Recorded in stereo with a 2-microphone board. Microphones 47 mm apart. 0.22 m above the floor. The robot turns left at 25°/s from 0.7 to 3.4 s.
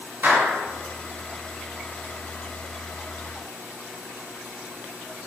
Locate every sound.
0.2 s a clap: 45° right (ahead or behind), 1.5 m